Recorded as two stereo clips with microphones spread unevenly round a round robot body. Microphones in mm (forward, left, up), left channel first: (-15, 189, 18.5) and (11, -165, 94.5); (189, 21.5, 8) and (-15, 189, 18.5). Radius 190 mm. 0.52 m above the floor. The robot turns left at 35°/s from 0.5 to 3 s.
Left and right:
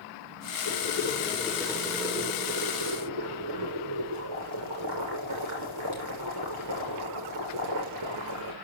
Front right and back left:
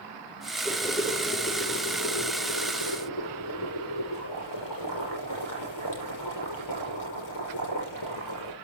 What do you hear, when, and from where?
0.7 s boiling: 45° left, 7 m; by 8.5 s 40° right, 7 m